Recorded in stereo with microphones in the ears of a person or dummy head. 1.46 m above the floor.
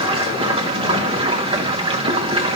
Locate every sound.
0.0 s running water: 25° right (ahead or behind), 0.9 m